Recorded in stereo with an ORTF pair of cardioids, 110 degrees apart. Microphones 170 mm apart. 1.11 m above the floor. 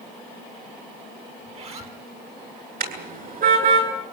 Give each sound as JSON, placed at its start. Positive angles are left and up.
{"t": 1.4, "sound": "a zipper", "azimuth_deg": -40, "distance_m": 4.0}
{"t": 2.8, "sound": "a car horn", "azimuth_deg": -55, "distance_m": 8.5}